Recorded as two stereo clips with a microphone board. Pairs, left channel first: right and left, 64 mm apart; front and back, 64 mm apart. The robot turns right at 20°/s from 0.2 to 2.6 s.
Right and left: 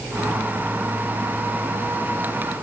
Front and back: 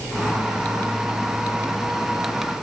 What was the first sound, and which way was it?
Only background noise.